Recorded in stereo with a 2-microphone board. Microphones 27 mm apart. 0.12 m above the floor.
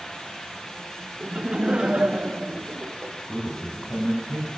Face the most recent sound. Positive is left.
turn(degrees=50)  # may be behind; listen again after turning